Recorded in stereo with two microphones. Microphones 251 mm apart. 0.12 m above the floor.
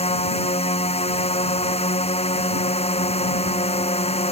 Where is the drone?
25° left (ahead or behind).